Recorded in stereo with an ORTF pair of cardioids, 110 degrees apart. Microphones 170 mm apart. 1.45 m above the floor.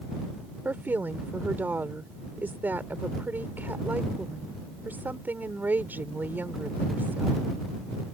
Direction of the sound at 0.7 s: 10° right.